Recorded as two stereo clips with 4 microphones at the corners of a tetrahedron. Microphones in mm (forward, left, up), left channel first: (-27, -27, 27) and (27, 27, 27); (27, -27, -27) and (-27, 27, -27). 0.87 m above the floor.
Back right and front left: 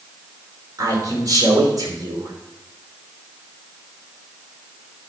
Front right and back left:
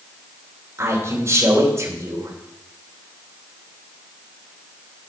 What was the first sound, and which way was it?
A man speaking, 80° left.